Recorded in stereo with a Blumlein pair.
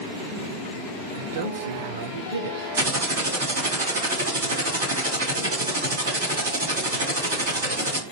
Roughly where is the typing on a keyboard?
Ahead right.